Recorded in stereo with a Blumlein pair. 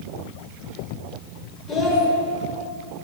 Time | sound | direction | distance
1.7 | a child speaking | 20° left | 1.6 m